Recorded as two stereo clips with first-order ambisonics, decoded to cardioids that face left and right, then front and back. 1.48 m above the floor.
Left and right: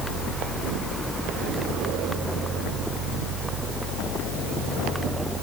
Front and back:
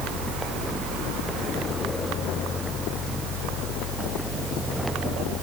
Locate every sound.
Only background noise.